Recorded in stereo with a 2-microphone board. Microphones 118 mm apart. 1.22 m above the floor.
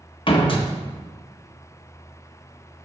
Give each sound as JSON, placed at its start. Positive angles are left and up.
{"t": 0.3, "sound": "a door slam", "side_deg": 45, "distance_m": 1.0}